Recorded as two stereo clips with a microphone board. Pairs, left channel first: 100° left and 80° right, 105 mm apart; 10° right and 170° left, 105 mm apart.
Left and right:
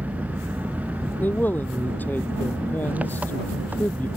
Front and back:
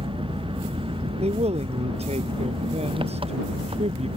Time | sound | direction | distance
0.0 | an engine running | 155° right | ?
1.2 | a man speaking | 175° left | ?